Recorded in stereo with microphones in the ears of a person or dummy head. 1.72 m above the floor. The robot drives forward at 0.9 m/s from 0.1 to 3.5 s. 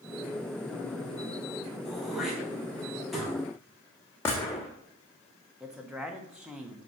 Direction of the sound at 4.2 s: 15° left (ahead or behind).